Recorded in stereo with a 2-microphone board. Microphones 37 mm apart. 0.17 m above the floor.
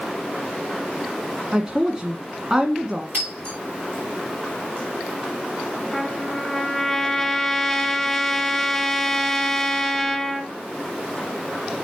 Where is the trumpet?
5° left (ahead or behind), 1.5 m.